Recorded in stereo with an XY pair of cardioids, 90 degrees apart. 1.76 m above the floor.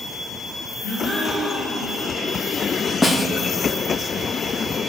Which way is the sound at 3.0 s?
25° left.